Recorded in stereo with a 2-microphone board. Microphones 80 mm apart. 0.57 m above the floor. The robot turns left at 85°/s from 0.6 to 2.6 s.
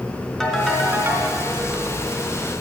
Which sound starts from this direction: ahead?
A ringtone, at 0.4 s.